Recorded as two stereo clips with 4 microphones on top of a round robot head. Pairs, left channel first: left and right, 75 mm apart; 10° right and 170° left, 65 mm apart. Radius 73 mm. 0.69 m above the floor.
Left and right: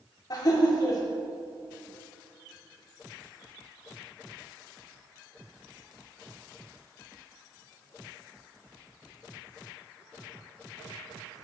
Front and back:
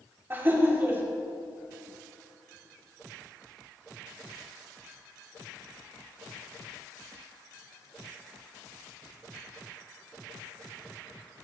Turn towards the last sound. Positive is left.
turn(degrees=115)